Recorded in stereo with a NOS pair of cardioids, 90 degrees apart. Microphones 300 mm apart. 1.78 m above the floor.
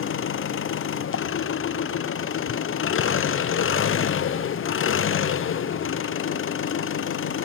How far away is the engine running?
About 1.0 m.